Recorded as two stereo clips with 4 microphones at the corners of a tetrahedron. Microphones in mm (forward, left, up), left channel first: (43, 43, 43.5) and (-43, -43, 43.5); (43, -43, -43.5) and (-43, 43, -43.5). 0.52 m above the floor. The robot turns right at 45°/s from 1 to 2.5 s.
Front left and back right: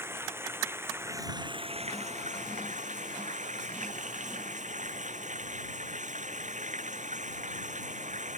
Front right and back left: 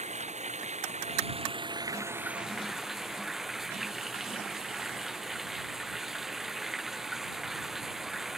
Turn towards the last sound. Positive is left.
turn(degrees=-140)